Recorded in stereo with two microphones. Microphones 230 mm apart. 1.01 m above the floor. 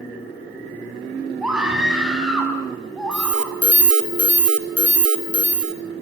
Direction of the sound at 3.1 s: 85° right.